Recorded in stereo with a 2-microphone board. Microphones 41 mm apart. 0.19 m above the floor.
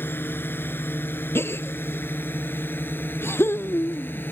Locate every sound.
0.0 s a drone: 60° left (ahead or behind); by 4.3 s 55° left (ahead or behind)
1.4 s a gasp: 70° left (ahead or behind)